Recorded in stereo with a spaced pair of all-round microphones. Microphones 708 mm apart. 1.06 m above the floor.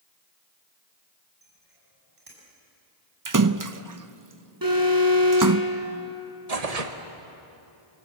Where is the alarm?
30° right (ahead or behind), 8 m.